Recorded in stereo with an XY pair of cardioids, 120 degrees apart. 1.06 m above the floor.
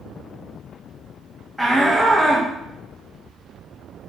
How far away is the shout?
About 1.5 m.